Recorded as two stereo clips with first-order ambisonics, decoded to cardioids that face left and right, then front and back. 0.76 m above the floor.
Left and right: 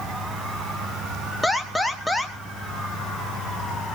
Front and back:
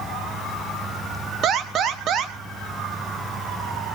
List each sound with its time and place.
1.4 s an alarm: straight behind, 1.6 m